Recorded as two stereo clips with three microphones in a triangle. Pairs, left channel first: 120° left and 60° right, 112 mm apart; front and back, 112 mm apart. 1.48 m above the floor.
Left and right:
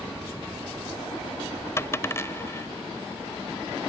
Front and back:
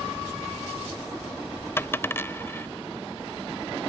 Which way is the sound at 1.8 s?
65° left.